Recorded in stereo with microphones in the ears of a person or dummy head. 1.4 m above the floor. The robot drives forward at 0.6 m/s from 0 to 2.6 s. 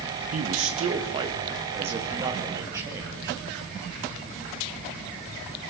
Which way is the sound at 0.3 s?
45° right (ahead or behind).